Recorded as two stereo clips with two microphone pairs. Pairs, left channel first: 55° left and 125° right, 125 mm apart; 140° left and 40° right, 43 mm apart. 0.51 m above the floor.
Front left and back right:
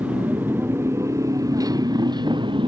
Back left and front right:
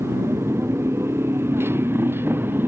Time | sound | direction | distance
0.0 | a motorcycle | 45° right | ?